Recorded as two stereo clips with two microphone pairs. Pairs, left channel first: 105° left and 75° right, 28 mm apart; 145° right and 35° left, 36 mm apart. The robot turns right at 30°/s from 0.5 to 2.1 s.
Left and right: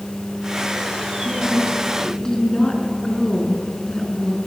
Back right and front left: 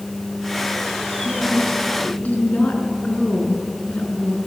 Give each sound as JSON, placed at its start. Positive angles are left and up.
{"t": 1.2, "sound": "a woman speaking", "azimuth_deg": 150, "distance_m": 4.5}